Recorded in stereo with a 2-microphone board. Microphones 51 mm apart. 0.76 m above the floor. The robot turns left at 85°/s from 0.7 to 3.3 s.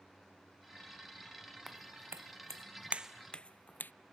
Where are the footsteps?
5° right (ahead or behind); by 3.9 s 40° left (ahead or behind).